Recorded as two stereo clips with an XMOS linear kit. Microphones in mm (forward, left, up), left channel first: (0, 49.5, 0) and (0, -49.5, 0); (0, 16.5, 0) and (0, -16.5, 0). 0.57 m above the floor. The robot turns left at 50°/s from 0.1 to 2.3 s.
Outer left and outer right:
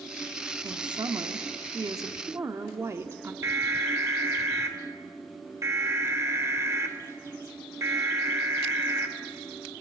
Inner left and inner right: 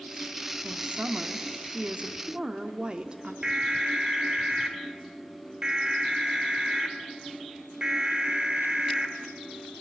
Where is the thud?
I don't hear a thud.